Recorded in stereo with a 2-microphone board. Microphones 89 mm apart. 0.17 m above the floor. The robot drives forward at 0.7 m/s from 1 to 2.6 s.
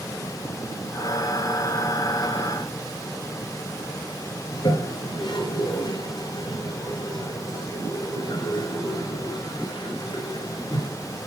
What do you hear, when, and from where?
4.5 s a toilet flushing: 60° left (ahead or behind), 3 m